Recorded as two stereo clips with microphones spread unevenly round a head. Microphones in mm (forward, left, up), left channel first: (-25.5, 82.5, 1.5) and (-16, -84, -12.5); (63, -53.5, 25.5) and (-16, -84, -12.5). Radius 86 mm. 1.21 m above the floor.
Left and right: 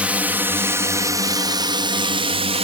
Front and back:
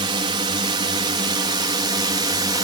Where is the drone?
170° right; by 2.6 s 135° right.